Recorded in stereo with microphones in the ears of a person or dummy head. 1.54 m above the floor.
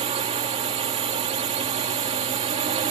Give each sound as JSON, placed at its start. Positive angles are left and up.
{"t": 0.0, "sound": "a drone", "side_deg": -30}